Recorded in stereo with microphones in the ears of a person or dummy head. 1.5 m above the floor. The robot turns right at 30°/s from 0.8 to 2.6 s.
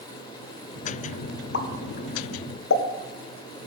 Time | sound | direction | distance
1.5 | a pop | 65° left (ahead or behind) | 0.8 m